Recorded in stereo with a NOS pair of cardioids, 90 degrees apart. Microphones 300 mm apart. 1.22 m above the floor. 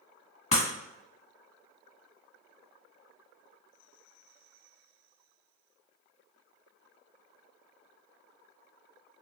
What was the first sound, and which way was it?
Breaking glass, 25° left.